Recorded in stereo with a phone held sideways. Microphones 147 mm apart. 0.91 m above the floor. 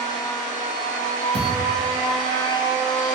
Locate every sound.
0.0 s a machine running: 30° left (ahead or behind), 0.9 m
1.3 s a thud: 35° right (ahead or behind), 2.0 m